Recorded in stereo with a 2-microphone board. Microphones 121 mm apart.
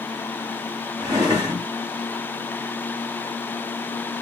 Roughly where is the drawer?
Right.